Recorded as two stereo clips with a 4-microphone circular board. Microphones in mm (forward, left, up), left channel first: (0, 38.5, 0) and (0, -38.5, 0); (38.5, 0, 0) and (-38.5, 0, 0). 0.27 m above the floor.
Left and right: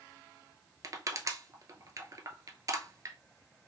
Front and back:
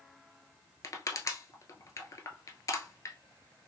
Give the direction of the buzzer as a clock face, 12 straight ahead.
No buzzer in this recording.